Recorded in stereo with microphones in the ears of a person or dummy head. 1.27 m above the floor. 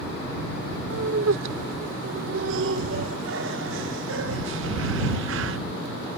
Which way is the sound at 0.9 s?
70° right (ahead or behind).